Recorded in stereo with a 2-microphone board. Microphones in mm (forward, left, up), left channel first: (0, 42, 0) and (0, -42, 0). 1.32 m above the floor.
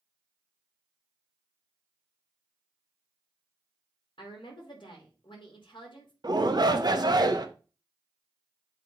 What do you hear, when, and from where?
4.2 s a woman speaking: 70° left (ahead or behind), 3 m
6.2 s a shout: 55° right (ahead or behind), 1.0 m